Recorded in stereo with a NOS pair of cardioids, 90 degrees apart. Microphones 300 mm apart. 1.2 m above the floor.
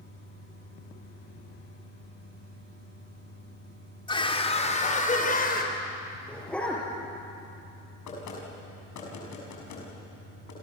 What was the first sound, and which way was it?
A scream, 15° left.